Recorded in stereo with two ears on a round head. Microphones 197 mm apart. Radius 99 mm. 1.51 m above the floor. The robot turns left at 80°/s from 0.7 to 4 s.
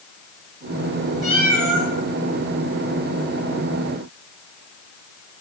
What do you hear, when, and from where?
1.2 s a cat meowing: 35° left, 7 m; by 1.9 s 20° right, 7 m